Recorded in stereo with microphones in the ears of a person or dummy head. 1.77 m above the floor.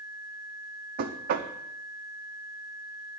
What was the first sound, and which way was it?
Knocking, 45° right (ahead or behind).